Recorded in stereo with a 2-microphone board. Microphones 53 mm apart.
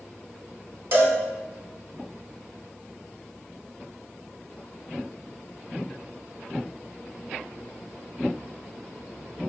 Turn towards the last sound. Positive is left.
turn(degrees=-50)  # may be behind; listen again after turning